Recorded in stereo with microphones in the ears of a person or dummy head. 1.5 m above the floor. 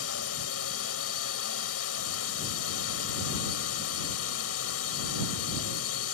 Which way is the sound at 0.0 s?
80° left.